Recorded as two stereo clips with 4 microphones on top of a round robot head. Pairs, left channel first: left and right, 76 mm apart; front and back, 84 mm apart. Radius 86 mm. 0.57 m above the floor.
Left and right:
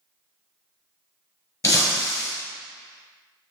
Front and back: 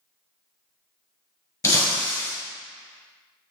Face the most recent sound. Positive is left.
turn(degrees=45)